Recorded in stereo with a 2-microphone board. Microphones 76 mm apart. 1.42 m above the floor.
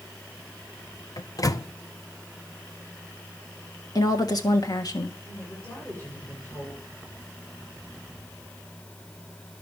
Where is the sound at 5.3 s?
25° left (ahead or behind), 8 m.